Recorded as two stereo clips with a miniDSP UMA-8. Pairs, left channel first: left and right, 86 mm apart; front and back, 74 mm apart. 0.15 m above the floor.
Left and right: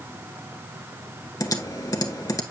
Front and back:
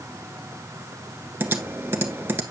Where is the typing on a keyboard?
130° left, 0.8 m.